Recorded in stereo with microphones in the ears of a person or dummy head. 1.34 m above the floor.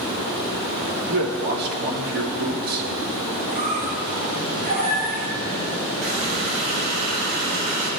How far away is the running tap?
About 6 m.